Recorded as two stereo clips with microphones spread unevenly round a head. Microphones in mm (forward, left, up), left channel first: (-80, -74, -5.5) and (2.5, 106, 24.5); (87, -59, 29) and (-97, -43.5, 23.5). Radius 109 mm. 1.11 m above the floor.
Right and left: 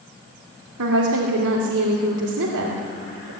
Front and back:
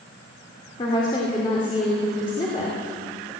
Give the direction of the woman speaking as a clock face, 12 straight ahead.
10 o'clock.